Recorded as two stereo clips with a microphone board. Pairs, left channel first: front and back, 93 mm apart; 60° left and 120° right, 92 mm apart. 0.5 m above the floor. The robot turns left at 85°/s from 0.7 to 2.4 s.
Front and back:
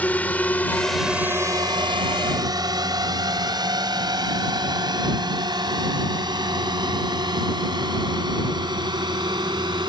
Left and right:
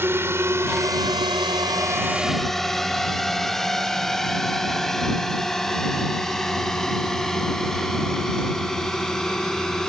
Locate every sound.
0.0 s a drone: 65° right; by 9.9 s 145° left